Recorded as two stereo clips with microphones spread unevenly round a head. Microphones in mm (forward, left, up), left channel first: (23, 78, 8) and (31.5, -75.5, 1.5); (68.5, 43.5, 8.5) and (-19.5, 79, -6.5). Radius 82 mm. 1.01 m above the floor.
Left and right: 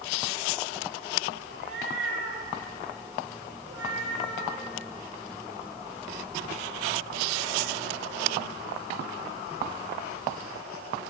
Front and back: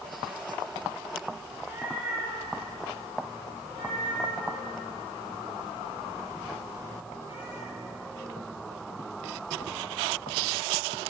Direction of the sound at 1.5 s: 120° right.